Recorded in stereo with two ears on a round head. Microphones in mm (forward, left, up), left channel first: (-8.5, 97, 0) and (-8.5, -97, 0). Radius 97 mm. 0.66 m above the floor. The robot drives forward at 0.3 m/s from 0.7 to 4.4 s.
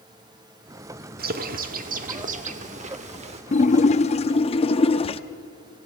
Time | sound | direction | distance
1.2 | a bird | 45° right (ahead or behind) | 1.3 m
3.5 | a splash | 35° left (ahead or behind) | 0.6 m